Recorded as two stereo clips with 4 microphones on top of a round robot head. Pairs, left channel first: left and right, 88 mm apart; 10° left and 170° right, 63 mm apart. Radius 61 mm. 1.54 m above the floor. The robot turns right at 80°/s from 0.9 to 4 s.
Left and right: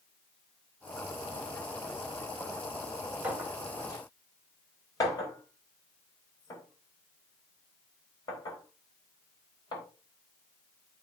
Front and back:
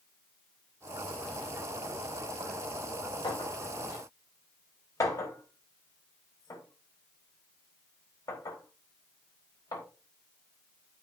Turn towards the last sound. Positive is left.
turn(degrees=45)